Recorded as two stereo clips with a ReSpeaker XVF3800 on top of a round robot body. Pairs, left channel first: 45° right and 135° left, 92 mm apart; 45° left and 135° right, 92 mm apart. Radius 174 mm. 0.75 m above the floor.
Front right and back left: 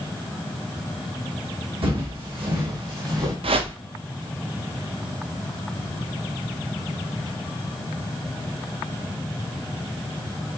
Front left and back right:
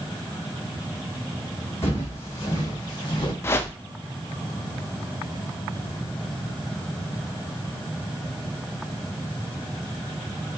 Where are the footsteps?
110° left, 2.5 m; by 3.3 s 90° left, 2.5 m.